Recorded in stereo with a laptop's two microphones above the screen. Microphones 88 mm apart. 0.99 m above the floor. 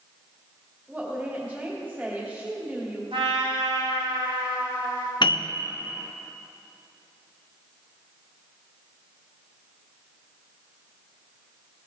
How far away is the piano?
About 0.6 m.